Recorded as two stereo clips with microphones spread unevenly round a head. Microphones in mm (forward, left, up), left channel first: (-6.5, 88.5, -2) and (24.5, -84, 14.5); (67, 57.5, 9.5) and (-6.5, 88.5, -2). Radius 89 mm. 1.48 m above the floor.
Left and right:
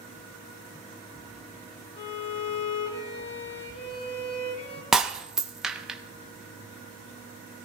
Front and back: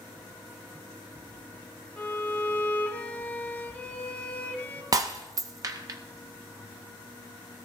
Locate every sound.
2.0 s a violin: 45° left, 1.9 m
4.9 s breaking glass: 160° right, 0.7 m